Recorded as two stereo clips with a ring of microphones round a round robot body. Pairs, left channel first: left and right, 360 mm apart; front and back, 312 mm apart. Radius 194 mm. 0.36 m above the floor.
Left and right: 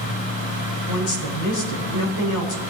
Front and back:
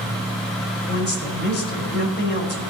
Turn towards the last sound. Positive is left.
turn(degrees=55)